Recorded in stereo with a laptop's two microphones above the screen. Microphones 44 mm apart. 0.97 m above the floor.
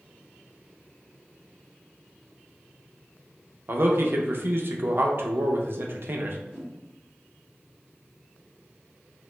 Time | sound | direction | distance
3.7 | a man speaking | 55° right (ahead or behind) | 0.5 m
6.5 | a whoosh | 10° right (ahead or behind) | 0.8 m